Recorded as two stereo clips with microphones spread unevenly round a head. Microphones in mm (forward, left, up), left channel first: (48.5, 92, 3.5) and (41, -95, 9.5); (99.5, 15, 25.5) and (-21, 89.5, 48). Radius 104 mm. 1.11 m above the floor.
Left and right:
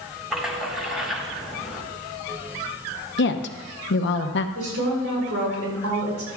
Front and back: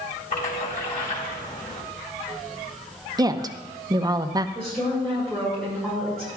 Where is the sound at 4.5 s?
115° right, 4.5 m.